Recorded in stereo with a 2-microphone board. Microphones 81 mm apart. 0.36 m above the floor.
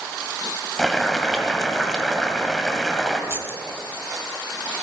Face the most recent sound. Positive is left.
turn(degrees=-30)  # may be behind; listen again after turning